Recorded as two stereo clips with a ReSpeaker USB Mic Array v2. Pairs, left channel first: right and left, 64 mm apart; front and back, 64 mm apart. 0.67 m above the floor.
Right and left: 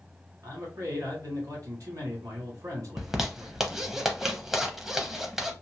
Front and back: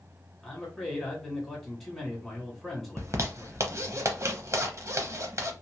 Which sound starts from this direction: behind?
A zipper, at 3.0 s.